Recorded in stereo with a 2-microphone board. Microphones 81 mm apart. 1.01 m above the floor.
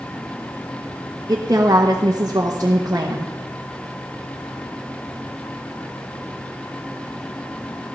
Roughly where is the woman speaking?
Right.